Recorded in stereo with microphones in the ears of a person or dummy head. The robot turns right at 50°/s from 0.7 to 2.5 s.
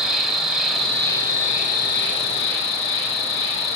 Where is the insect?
Straight ahead, 2.5 m; by 3.8 s 90° left, 2.5 m.